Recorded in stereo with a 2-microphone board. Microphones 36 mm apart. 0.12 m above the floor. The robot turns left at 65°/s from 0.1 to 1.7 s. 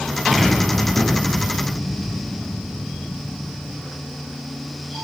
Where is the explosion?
175° right, 1.8 m; by 3.8 s 95° left, 1.8 m.